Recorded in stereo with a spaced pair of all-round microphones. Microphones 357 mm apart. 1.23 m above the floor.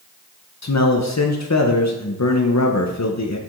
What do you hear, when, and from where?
0.6 s a man speaking: 50° left (ahead or behind), 0.6 m